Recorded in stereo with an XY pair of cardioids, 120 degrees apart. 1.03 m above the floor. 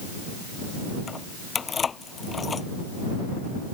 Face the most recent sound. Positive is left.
turn(degrees=30)